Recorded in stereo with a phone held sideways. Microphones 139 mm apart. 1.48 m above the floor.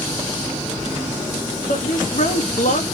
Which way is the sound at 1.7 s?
65° left (ahead or behind).